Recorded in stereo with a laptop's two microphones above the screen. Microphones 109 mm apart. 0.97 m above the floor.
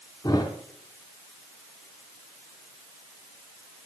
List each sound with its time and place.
0.2 s a thud: 35° left (ahead or behind), 2.5 m